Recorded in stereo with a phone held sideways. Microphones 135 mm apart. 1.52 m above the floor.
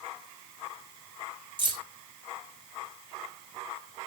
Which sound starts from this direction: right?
Keys jangling, at 1.6 s.